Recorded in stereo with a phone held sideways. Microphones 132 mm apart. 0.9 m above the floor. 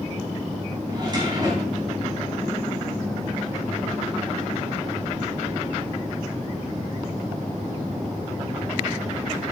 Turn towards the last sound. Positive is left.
turn(degrees=-30)  # may be behind; listen again after turning